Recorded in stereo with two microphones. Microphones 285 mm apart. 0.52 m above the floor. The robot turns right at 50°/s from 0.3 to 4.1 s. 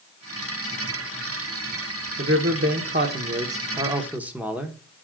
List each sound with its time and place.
2.2 s a man speaking: 105° right, 1.0 m; by 4.8 s 5° right, 1.0 m